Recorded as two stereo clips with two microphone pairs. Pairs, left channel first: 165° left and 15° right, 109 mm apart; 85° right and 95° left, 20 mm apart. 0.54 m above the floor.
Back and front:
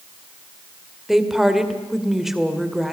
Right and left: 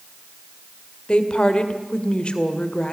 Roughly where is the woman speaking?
Right.